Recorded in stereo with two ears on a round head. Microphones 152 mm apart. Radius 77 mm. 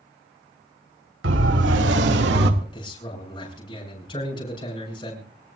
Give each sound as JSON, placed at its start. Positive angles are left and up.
{"t": 1.2, "sound": "a siren", "side_deg": -80, "distance_m": 3.5}
{"t": 2.6, "sound": "a man speaking", "side_deg": 30, "distance_m": 7.5}